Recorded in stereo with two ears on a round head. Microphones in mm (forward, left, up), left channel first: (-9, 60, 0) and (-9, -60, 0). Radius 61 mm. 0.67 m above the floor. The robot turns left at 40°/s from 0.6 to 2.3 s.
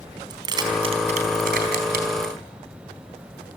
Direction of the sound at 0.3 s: 30° right (ahead or behind).